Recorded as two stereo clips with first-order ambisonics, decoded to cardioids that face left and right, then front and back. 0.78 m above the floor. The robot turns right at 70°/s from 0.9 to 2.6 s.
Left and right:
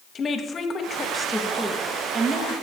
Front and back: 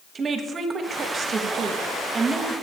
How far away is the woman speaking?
About 0.8 m.